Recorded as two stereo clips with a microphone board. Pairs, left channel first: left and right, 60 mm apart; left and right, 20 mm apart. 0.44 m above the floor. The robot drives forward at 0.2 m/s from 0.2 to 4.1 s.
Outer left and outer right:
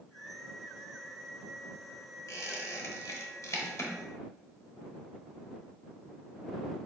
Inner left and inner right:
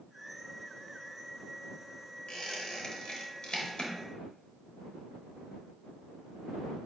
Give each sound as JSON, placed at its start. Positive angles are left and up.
{"t": 2.3, "sound": "a squeak", "side_deg": 65, "distance_m": 0.9}